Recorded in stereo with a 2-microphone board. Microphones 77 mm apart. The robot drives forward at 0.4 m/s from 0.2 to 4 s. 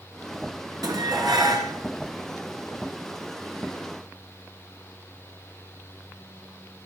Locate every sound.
0.8 s dishes clattering: 60° right (ahead or behind), 1.9 m; by 1.7 s 70° right (ahead or behind), 1.8 m